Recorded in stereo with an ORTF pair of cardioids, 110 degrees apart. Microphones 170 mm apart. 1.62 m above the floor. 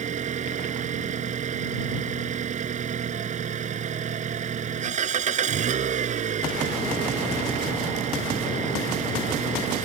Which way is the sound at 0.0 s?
45° right.